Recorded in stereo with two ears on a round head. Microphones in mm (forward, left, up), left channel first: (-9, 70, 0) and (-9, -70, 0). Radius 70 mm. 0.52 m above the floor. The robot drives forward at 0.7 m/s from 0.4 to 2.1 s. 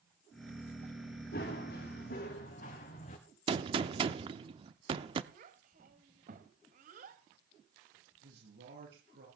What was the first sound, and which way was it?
Running footsteps, 60° left (ahead or behind).